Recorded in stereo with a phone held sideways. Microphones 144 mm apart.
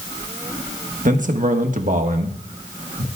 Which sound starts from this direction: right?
A man speaking, at 1.1 s.